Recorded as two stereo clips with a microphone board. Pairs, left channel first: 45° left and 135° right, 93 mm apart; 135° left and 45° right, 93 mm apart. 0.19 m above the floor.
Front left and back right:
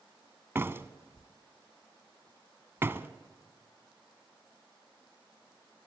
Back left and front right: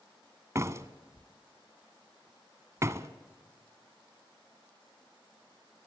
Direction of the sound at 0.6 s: 85° right.